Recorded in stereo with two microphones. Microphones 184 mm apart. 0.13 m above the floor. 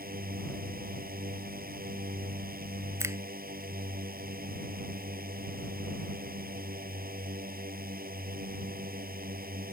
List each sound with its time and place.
0.0 s a drone: 55° right (ahead or behind)
3.0 s a finger snap: 15° right (ahead or behind)